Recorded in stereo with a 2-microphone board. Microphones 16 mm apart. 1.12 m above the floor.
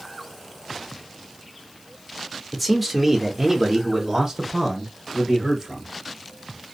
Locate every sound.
2.5 s a man speaking: 5° left (ahead or behind), 0.8 m; by 5.9 s 35° right (ahead or behind), 1.9 m